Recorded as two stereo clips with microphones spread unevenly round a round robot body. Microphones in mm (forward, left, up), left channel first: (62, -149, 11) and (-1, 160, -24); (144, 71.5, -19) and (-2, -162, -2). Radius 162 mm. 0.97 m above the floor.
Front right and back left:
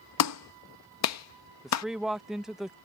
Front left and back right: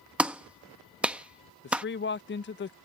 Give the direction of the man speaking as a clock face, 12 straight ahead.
11 o'clock.